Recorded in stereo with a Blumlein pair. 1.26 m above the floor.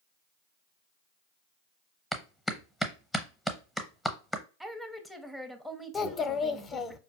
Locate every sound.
2.1 s a clap: 5° left, 0.7 m
4.6 s a woman speaking: straight ahead, 0.7 m
5.9 s a child speaking: 20° left, 0.6 m